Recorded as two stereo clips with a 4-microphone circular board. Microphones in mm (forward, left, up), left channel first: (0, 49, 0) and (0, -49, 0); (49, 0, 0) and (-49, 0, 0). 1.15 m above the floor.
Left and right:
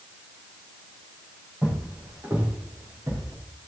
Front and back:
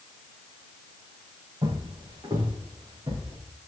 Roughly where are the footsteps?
Behind right.